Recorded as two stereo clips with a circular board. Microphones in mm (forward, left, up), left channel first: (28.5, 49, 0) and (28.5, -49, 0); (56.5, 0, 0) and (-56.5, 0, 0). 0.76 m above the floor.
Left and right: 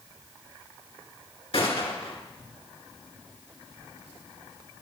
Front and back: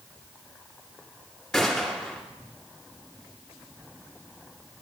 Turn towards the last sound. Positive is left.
turn(degrees=85)